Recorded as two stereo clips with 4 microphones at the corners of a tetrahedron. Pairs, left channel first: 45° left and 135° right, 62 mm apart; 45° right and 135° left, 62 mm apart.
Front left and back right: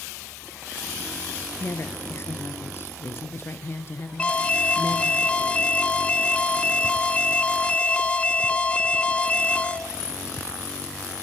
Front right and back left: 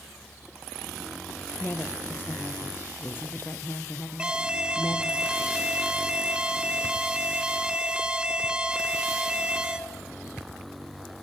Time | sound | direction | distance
1.6 | a woman speaking | 5° left | 2 m
4.2 | an alarm | 85° left | 1.0 m